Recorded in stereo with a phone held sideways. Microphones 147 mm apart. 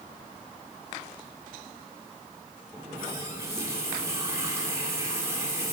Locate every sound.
2.7 s a running tap: 20° right (ahead or behind), 1.6 m